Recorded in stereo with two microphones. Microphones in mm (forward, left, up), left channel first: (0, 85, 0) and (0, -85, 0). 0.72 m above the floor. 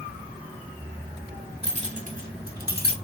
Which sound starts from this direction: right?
Keys jangling, at 1.6 s.